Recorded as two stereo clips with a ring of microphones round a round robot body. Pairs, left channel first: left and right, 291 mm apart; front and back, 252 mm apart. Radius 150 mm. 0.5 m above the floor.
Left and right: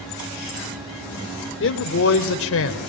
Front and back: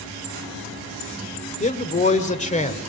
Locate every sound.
1.6 s a man speaking: 55° left, 1.9 m